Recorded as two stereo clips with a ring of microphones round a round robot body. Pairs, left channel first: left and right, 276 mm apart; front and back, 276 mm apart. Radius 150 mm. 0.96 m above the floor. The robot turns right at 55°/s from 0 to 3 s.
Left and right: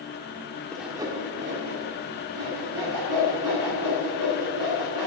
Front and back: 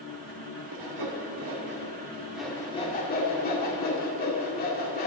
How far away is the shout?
No shout in this recording.